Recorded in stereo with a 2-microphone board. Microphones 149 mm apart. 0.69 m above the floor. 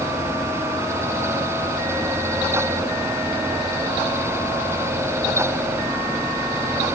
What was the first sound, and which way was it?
Only background noise.